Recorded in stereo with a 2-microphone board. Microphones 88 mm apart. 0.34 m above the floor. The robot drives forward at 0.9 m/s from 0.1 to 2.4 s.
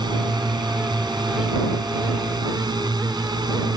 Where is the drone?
55° right (ahead or behind).